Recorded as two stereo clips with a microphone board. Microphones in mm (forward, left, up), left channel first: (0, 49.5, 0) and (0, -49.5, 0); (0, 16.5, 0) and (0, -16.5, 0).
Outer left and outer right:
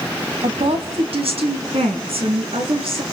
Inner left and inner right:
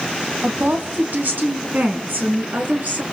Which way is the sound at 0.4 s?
75° right (ahead or behind).